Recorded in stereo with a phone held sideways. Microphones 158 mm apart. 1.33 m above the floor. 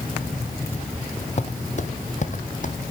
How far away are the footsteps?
About 2.0 m.